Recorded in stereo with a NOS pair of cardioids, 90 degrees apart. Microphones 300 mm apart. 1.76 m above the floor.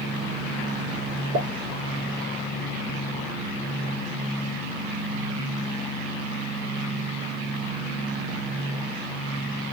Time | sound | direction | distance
1.3 | a pop | 65° right | 1.9 m